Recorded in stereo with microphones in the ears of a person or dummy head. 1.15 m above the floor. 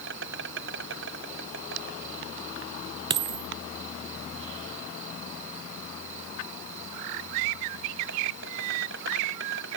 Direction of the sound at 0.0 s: 70° right (ahead or behind).